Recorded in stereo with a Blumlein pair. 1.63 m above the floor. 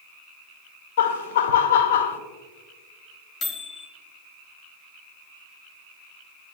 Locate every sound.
1.0 s laughter: 55° left, 0.6 m
3.4 s a microwave: 25° left, 1.1 m